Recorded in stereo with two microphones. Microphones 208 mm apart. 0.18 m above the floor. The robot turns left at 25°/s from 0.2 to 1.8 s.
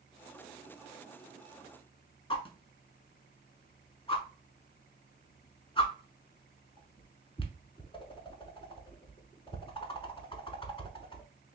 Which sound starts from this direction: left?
A whoosh, at 2.3 s.